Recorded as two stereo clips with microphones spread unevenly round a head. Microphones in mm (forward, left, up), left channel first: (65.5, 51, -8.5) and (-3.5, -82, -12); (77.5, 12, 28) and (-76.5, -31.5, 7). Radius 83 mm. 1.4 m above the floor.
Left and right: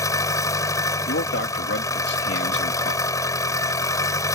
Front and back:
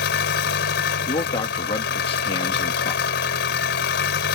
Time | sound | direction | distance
0.0 | an engine running | 5° right | ?
1.1 | a man speaking | 75° left | ?